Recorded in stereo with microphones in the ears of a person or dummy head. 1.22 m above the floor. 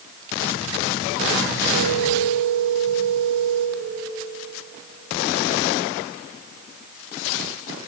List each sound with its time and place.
1.7 s a phone ringing: 75° right (ahead or behind), 1.8 m